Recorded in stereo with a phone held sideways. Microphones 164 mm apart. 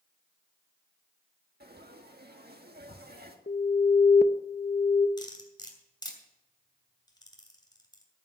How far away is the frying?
About 1.4 m.